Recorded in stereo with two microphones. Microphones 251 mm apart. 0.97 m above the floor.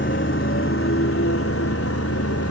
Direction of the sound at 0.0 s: 50° left (ahead or behind).